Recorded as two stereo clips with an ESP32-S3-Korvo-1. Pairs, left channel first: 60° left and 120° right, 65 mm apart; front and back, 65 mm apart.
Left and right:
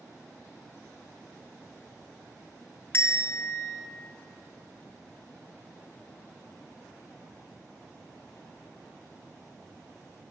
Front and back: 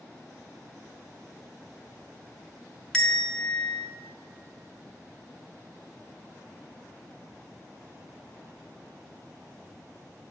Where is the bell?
75° left, 0.5 m.